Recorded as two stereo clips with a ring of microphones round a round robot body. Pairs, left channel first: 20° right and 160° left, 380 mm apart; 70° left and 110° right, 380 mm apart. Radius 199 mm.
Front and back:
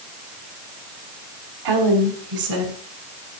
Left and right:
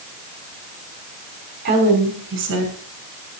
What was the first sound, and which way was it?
A woman speaking, straight behind.